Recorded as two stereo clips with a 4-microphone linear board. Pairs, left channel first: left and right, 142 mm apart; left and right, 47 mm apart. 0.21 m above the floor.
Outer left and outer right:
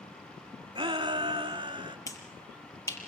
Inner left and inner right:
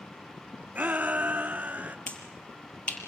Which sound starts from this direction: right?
A shout, at 0.8 s.